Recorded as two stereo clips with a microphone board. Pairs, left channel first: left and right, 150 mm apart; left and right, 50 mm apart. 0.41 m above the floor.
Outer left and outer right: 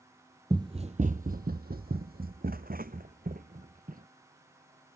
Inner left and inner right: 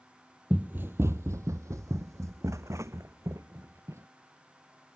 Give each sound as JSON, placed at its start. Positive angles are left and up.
{"t": 0.5, "sound": "running footsteps", "side_deg": -25}